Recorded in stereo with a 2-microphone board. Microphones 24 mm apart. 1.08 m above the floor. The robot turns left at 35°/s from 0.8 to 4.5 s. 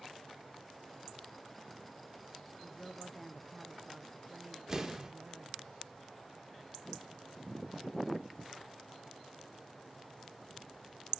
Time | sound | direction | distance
2.6 | a woman speaking | 30° left | 0.8 m
4.7 | an explosion | 20° right (ahead or behind) | 1.7 m